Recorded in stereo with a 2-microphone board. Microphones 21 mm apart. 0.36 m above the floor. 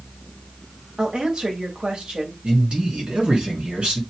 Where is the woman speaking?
50° right (ahead or behind), 1.5 m.